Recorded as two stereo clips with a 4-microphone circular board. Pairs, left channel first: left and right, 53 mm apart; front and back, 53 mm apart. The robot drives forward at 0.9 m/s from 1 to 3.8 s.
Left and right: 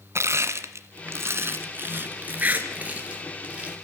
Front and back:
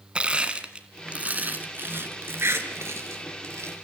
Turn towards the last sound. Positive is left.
turn(degrees=-160)